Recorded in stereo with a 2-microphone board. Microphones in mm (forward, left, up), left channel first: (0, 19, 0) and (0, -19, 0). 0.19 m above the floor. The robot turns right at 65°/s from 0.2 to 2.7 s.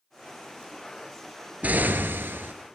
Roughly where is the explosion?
Behind right.